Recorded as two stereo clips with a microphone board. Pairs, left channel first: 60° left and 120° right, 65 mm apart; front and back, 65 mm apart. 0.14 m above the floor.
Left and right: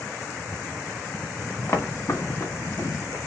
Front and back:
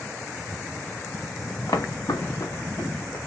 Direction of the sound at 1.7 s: 5° left.